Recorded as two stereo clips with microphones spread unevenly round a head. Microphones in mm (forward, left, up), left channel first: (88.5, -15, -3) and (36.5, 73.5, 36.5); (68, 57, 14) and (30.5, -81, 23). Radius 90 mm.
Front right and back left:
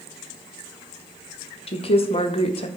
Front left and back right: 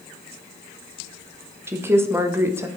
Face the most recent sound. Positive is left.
turn(degrees=-30)